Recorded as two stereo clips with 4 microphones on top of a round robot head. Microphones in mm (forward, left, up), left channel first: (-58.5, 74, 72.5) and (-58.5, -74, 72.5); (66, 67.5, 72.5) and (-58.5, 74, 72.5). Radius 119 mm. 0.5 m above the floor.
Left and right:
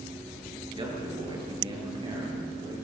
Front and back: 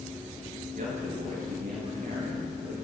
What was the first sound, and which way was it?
A man speaking, 145° right.